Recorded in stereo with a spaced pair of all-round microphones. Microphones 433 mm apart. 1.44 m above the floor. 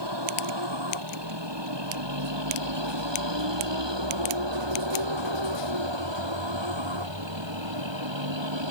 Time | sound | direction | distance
0.0 | a vehicle | 70° right (ahead or behind) | ?